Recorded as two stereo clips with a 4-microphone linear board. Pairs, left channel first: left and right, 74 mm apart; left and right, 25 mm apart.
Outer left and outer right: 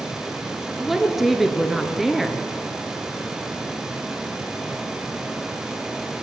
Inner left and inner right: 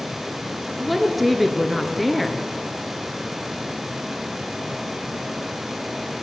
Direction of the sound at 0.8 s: 5° right (ahead or behind).